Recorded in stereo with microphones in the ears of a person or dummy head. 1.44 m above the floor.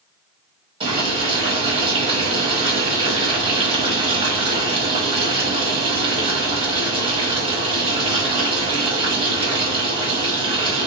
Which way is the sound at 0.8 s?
30° right (ahead or behind).